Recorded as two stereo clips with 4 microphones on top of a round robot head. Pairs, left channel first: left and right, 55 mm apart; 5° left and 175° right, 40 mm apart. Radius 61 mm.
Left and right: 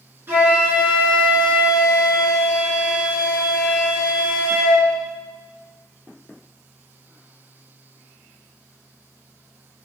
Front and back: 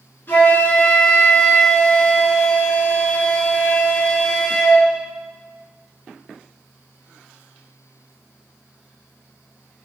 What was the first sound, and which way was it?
A flute, 40° right.